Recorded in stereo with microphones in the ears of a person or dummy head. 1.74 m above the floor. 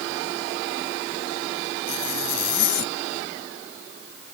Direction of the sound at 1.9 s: 55° left (ahead or behind).